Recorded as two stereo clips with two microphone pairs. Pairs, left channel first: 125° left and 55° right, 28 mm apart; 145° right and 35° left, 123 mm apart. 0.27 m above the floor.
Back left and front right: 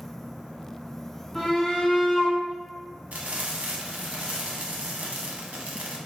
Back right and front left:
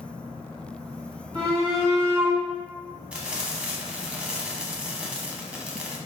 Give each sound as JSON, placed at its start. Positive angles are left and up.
{"t": 1.4, "sound": "a shout", "azimuth_deg": 45, "distance_m": 1.4}
{"t": 3.1, "sound": "frying", "azimuth_deg": -45, "distance_m": 0.7}